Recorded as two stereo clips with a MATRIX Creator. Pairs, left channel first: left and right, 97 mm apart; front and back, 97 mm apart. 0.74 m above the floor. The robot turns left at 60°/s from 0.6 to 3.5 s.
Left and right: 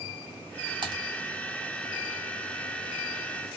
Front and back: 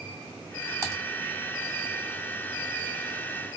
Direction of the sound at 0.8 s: 120° right.